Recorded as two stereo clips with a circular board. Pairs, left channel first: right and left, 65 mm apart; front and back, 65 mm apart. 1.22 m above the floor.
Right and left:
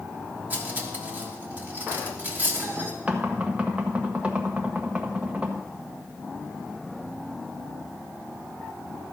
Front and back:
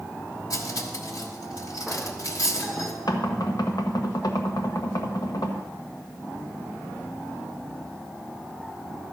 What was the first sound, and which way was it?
Cutlery clinking, 30° left.